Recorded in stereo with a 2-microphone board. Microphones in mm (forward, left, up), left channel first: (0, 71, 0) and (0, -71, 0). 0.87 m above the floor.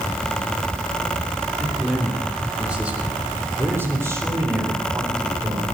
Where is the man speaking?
5° left (ahead or behind), 2.5 m; by 5.6 s 25° right (ahead or behind), 4 m.